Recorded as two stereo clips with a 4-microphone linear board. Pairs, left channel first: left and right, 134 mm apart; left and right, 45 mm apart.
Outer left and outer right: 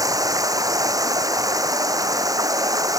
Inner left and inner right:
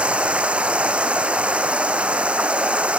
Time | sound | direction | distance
0.0 | running water | 25° right (ahead or behind) | ?